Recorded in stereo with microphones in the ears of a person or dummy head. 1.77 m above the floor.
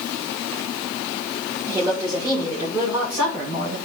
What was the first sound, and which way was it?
A woman speaking, 20° right (ahead or behind).